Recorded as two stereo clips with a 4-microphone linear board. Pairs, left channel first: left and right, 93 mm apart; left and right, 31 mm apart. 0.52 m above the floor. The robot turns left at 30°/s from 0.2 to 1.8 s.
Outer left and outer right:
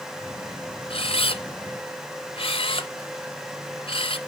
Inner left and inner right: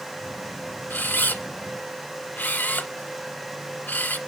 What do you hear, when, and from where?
0.9 s a camera shutter: 75° left (ahead or behind), 0.8 m; by 4.2 s 80° left, 0.8 m